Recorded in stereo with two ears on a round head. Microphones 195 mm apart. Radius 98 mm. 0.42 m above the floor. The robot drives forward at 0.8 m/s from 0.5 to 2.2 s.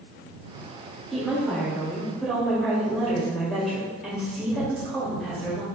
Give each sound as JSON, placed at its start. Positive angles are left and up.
{"t": 1.1, "sound": "a woman speaking", "side_deg": 0, "distance_m": 1.3}